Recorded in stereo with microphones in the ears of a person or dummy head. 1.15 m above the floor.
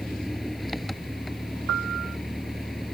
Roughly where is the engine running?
Centre.